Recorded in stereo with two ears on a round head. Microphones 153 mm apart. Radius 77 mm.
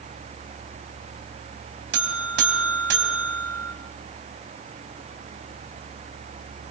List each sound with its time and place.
1.9 s a buzzer: 70° right (ahead or behind), 3.5 m